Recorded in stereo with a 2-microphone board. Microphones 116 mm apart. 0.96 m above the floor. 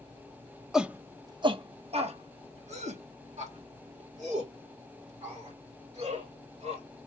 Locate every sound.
0.7 s a shout: 5° right (ahead or behind), 0.7 m; by 6.8 s 80° right, 4.5 m